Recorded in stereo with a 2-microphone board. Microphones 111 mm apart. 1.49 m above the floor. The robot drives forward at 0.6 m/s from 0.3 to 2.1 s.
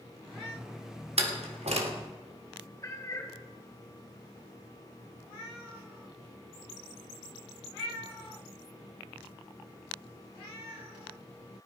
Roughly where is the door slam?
Right.